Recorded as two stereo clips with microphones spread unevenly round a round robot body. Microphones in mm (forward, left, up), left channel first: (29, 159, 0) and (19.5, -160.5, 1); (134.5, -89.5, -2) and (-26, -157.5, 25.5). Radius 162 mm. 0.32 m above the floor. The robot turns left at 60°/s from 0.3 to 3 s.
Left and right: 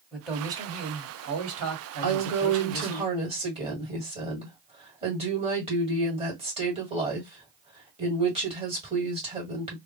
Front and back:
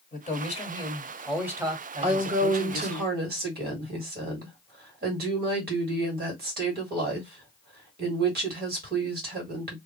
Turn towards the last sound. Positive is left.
turn(degrees=-160)